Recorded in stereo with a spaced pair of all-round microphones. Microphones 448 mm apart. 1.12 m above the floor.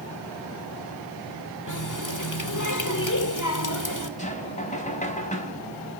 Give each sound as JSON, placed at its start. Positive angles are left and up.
{"t": 1.7, "sound": "a running tap", "side_deg": 40, "distance_m": 2.0}
{"t": 4.2, "sound": "knocking", "side_deg": 15, "distance_m": 4.5}